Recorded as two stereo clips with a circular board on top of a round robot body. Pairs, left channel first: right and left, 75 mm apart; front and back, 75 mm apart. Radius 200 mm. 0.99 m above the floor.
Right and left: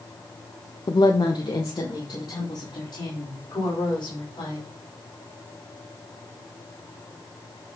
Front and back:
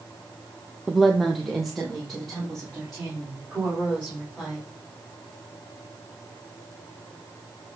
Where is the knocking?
I don't hear knocking.